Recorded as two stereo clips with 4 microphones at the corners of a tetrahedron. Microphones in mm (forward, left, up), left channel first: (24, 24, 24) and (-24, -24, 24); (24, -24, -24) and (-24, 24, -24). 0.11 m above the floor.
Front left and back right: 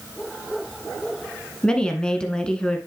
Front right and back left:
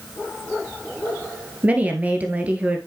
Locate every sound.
1.6 s a woman speaking: 105° left, 1.3 m